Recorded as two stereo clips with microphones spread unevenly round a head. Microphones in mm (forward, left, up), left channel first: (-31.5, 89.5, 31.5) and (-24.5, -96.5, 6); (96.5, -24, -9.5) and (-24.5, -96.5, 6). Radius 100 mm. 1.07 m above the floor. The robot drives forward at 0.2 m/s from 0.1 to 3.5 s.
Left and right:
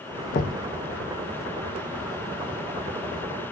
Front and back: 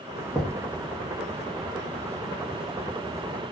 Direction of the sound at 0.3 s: 120° left.